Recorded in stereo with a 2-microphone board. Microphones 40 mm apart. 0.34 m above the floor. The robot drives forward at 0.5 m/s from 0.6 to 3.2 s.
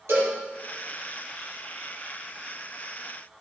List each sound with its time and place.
0.1 s a cowbell: 80° right, 6.5 m